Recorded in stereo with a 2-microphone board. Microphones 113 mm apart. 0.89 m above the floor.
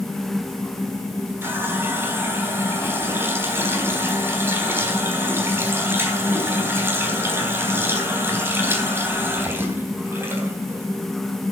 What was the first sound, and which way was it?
A running tap, 20° right (ahead or behind).